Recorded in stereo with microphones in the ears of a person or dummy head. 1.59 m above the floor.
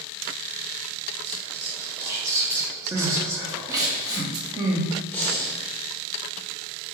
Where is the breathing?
10° left (ahead or behind), 0.6 m.